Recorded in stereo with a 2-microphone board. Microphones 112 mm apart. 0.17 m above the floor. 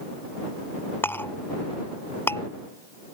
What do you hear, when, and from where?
1.0 s a clink: 20° left (ahead or behind)